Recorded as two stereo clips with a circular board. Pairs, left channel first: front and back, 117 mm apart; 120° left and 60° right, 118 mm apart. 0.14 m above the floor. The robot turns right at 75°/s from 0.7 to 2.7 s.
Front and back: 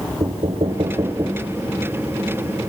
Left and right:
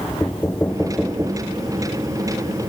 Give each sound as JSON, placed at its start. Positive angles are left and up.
{"t": 0.2, "sound": "knocking", "azimuth_deg": -160, "distance_m": 1.7}